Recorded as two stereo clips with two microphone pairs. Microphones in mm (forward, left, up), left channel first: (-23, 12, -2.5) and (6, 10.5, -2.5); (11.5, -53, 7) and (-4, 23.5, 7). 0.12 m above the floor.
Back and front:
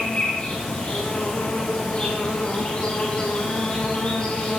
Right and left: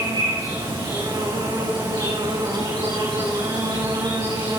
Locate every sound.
0.0 s an insect: 125° left, 6.5 m